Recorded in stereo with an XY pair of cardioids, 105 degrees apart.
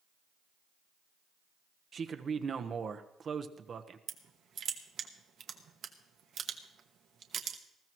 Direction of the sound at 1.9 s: 40° right.